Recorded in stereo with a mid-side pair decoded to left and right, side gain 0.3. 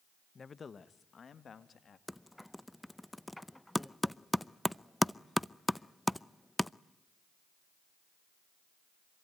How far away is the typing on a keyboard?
About 0.5 m.